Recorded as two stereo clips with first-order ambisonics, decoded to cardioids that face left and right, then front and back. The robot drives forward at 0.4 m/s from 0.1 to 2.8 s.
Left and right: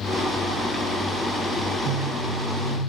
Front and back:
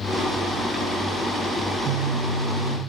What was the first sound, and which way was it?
A phone buzzing, 105° right.